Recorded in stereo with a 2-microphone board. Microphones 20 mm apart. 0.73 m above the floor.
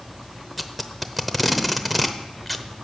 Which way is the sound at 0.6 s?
5° right (ahead or behind).